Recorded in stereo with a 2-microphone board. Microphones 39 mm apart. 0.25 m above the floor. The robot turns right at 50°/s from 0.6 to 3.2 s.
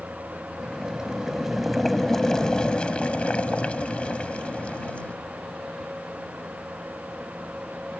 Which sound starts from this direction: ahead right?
Boiling, at 0.6 s.